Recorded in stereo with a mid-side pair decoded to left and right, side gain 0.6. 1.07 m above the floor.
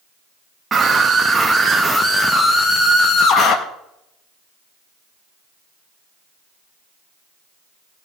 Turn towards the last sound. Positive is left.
turn(degrees=55)